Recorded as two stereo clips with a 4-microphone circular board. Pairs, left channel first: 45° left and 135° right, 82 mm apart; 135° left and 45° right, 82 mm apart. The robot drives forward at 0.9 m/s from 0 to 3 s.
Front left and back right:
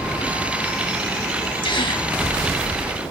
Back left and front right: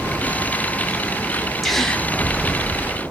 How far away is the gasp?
About 1.5 m.